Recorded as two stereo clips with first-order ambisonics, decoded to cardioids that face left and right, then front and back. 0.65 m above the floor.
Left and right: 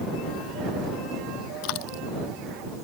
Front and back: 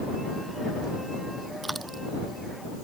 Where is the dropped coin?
100° left.